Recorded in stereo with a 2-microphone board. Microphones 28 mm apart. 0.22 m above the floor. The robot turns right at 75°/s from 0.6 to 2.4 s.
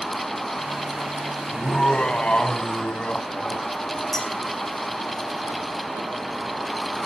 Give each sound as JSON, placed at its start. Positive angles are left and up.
{"t": 1.5, "sound": "laughter", "azimuth_deg": 35, "distance_m": 1.3}
{"t": 4.1, "sound": "a clink", "side_deg": 10, "distance_m": 6.5}